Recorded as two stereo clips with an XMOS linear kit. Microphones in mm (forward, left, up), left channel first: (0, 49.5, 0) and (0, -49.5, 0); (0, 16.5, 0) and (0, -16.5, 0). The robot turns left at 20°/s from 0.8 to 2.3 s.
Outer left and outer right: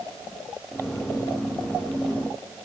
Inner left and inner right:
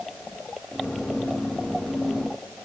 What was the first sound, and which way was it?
Only background noise.